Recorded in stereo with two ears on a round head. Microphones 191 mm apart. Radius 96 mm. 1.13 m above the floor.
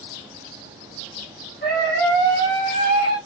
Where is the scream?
45° left (ahead or behind), 4.5 m; by 3.2 s 40° left (ahead or behind), 6.5 m.